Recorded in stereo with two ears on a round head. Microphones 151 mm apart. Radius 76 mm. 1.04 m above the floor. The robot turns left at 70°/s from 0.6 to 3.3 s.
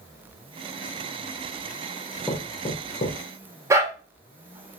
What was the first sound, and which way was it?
Knocking, 5° left (ahead or behind).